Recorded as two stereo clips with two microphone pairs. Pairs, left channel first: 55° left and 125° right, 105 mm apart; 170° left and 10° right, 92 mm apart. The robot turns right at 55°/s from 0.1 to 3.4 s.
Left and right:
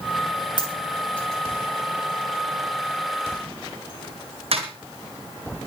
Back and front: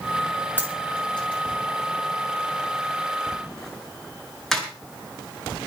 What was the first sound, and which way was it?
A dropped coin, 100° left.